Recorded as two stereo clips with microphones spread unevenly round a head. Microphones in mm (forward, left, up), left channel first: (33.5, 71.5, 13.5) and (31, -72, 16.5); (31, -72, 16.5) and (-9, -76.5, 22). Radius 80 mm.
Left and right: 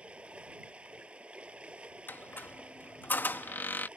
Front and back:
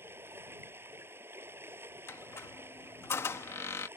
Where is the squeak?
10° left.